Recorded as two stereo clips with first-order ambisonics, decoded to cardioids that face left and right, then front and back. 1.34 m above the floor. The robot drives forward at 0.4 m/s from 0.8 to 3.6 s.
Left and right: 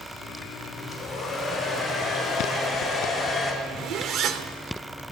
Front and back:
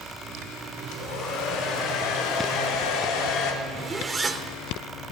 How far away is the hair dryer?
About 5 m.